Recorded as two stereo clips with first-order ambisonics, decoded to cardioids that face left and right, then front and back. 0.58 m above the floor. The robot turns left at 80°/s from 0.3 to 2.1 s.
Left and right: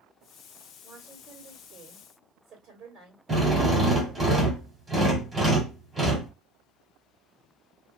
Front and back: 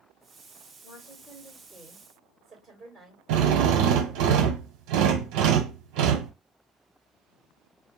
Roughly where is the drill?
Behind.